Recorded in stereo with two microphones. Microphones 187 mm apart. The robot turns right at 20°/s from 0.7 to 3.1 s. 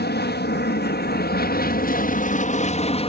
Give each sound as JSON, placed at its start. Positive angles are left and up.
{"t": 0.0, "sound": "an aircraft", "azimuth_deg": 95}